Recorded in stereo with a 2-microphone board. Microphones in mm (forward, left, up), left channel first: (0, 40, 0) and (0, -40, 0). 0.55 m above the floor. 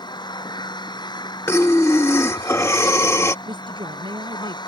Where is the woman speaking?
85° right.